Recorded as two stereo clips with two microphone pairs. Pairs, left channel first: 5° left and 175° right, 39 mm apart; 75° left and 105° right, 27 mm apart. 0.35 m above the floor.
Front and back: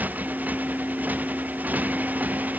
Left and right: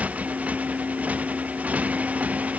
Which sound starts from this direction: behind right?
A motorcycle, at 0.0 s.